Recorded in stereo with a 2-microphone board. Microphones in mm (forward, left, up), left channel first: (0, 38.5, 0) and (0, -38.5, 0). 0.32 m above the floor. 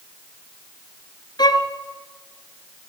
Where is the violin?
65° left (ahead or behind), 1.8 m.